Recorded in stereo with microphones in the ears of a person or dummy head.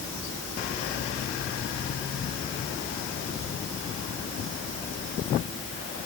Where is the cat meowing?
I don't hear a cat meowing.